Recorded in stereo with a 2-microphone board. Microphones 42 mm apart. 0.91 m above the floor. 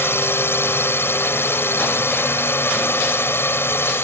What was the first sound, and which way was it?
A drone, 70° left (ahead or behind).